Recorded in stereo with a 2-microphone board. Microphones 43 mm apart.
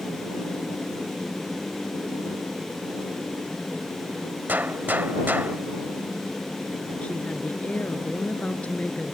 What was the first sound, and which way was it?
A gunshot, 50° right (ahead or behind).